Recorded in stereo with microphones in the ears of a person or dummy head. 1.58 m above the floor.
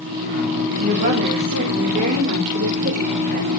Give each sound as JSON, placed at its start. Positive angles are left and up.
{"t": 0.8, "sound": "a woman speaking", "side_deg": -55, "distance_m": 2.5}